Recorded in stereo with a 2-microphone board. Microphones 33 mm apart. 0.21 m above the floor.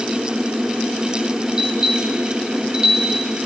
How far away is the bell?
About 3.5 m.